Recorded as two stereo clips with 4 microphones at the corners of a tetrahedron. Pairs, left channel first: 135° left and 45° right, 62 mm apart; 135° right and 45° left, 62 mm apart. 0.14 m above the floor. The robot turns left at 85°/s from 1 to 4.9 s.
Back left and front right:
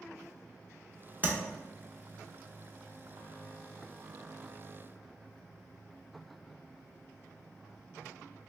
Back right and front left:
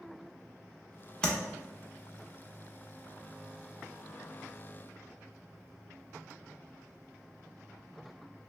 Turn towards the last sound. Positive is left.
turn(degrees=-15)